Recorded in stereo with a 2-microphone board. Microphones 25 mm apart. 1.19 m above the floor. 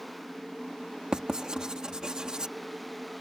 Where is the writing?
30° right (ahead or behind).